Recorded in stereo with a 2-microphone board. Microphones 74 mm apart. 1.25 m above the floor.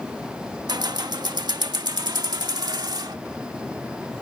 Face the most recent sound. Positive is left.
turn(degrees=-75)  # may be behind; listen again after turning